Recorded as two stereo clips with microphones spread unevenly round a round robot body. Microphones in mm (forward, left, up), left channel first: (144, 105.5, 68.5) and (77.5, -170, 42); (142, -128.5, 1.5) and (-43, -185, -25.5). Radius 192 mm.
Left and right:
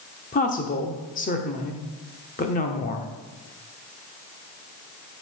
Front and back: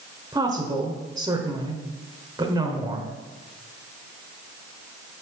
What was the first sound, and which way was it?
A woman speaking, 135° left.